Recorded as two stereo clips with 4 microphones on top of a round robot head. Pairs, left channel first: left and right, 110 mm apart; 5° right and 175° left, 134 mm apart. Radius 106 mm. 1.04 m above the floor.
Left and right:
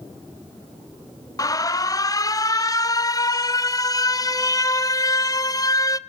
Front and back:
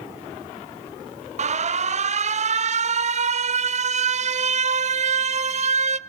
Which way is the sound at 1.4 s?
145° left.